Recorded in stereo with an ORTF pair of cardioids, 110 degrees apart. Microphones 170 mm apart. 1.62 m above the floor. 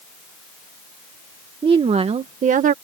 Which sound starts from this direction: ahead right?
A woman speaking, at 1.6 s.